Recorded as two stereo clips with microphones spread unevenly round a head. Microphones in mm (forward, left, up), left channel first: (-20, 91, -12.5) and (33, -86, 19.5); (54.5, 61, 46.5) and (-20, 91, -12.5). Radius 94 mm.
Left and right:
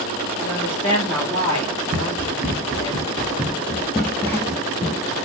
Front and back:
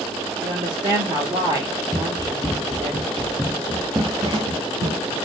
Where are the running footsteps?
30° right, 1.6 m; by 5.2 s 165° left, 1.2 m.